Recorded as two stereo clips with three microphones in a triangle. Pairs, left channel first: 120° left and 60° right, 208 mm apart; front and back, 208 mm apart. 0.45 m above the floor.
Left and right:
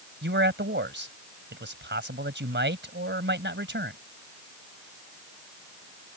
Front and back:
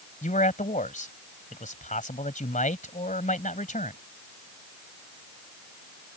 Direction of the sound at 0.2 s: 45° right.